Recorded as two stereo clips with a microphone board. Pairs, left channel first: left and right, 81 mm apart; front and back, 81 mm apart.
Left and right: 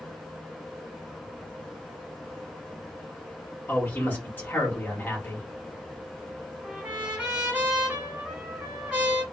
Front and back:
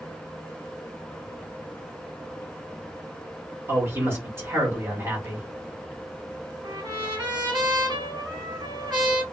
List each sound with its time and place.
3.7 s a man speaking: 140° left, 1.3 m
6.6 s a trumpet: 165° right, 1.4 m